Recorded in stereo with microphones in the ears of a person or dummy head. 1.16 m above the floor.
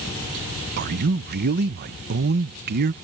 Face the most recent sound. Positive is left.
turn(degrees=-50)  # may be behind; listen again after turning